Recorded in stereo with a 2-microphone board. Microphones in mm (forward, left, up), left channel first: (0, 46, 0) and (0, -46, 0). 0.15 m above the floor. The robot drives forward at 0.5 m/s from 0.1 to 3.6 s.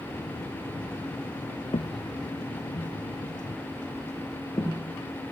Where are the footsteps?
75° left (ahead or behind), 0.6 m; by 4.9 s 40° left (ahead or behind), 2.5 m.